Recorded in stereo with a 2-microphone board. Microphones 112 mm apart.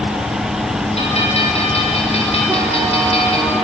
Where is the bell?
65° left (ahead or behind), 5.5 m.